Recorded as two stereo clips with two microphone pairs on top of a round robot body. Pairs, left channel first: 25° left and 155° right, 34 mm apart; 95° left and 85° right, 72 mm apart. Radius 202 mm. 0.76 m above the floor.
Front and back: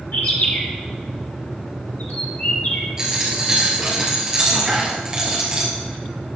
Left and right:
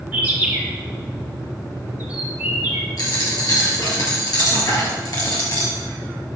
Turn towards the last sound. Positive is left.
turn(degrees=135)